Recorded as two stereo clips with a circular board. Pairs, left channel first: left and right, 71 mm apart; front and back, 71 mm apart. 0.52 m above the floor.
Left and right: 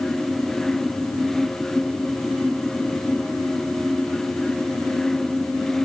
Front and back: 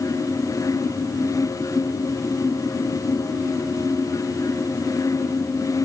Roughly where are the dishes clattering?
I don't hear dishes clattering.